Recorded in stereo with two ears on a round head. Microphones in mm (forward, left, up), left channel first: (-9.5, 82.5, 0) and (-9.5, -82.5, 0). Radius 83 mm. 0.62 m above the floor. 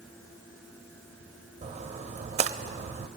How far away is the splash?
About 0.6 m.